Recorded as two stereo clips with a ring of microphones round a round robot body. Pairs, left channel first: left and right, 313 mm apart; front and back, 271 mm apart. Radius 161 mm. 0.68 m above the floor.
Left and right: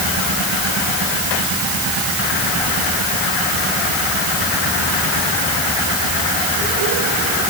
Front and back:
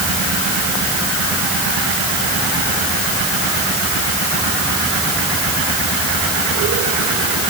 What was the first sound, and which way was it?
Only background noise.